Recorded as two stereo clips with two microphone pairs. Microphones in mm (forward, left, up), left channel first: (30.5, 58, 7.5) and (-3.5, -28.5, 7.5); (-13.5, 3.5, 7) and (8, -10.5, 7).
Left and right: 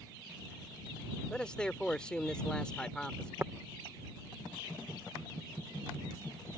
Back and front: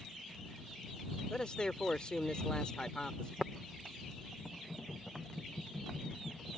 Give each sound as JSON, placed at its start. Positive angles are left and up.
{"t": 1.3, "sound": "a man speaking", "azimuth_deg": 140}
{"t": 3.4, "sound": "tapping", "azimuth_deg": -65}